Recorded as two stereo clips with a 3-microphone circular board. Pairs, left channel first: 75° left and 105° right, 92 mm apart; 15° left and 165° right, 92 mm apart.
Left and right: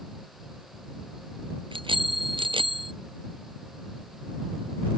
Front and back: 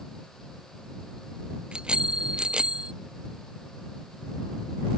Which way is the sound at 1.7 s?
85° right.